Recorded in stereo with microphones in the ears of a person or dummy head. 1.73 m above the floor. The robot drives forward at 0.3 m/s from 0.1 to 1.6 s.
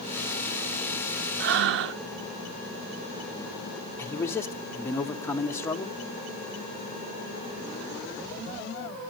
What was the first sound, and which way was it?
Breathing, 55° right (ahead or behind).